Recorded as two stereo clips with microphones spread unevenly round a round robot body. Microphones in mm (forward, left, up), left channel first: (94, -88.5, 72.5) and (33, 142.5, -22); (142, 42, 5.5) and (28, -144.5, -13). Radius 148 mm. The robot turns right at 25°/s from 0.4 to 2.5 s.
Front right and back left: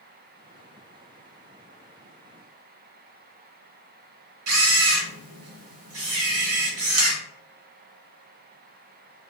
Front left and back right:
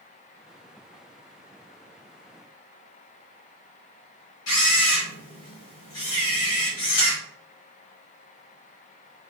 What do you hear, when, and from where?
4.5 s a camera shutter: 105° left, 1.2 m